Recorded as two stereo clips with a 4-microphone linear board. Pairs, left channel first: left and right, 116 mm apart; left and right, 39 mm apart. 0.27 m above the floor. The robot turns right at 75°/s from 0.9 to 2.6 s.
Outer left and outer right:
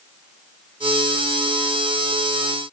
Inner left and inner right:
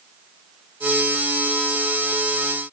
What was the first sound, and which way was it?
Only background noise.